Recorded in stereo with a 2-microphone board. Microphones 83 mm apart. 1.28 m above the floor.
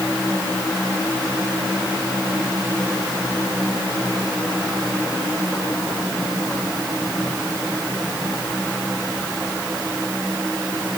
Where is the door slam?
I don't hear a door slam.